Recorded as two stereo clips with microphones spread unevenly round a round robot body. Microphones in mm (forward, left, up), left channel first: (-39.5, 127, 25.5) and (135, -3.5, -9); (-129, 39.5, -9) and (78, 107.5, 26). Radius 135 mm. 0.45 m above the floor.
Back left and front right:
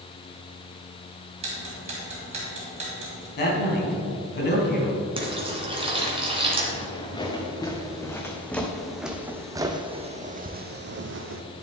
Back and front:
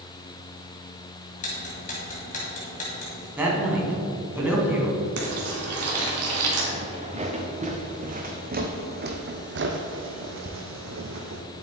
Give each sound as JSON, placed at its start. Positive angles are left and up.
{"t": 1.4, "sound": "ticking", "azimuth_deg": -100, "distance_m": 1.8}
{"t": 3.4, "sound": "a man speaking", "azimuth_deg": 100, "distance_m": 3.0}
{"t": 5.2, "sound": "frying", "azimuth_deg": 30, "distance_m": 2.5}
{"t": 6.7, "sound": "footsteps", "azimuth_deg": 80, "distance_m": 2.0}